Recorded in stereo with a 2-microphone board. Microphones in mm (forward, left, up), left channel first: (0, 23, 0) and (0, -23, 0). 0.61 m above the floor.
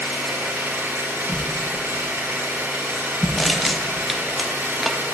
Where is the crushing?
Centre (ahead or behind), 0.6 m.